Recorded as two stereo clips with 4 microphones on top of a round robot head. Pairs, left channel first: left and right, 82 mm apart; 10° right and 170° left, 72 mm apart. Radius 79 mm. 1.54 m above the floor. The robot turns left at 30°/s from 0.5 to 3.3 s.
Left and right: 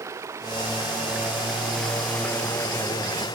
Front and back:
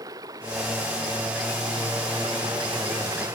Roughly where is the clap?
I don't hear a clap.